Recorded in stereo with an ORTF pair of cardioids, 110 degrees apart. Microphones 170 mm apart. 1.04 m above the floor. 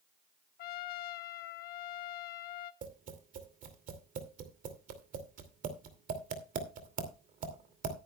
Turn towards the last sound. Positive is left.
turn(degrees=-55)